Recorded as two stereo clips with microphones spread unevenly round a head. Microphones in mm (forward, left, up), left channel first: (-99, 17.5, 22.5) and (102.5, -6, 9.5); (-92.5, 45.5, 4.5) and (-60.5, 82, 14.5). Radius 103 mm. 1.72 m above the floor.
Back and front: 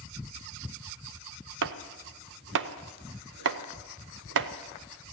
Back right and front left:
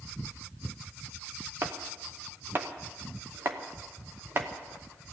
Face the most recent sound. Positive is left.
turn(degrees=15)